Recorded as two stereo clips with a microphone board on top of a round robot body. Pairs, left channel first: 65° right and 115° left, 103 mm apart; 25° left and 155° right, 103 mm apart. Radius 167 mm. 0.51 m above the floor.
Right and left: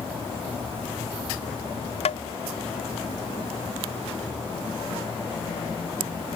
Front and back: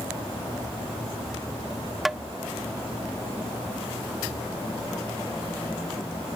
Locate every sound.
2.0 s tapping: 70° right